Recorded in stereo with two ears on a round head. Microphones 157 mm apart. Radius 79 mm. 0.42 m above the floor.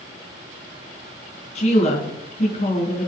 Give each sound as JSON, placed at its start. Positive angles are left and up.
{"t": 1.6, "sound": "a woman speaking", "side_deg": 40, "distance_m": 3.5}